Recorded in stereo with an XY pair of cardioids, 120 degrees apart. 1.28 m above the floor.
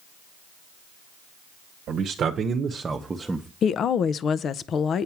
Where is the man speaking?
65° right, 1.0 m; by 3.5 s 5° right, 0.9 m.